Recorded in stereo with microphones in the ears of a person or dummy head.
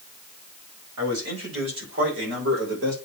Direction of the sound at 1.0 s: 70° right (ahead or behind).